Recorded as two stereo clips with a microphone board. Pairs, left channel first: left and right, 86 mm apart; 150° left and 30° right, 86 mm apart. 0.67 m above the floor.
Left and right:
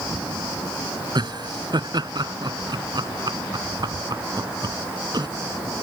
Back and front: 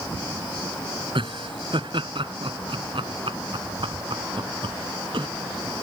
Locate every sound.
1.1 s laughter: 55° right